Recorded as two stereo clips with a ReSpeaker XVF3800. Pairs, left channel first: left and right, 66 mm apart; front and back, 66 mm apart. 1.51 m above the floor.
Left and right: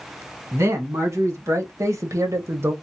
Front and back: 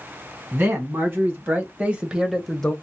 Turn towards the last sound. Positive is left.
turn(degrees=-65)